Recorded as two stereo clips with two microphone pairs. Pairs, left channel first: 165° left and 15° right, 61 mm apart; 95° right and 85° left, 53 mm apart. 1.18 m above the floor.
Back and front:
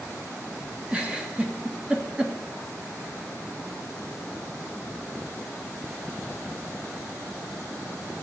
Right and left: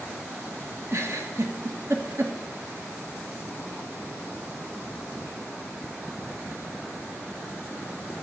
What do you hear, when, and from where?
0.9 s a giggle: 55° left, 2 m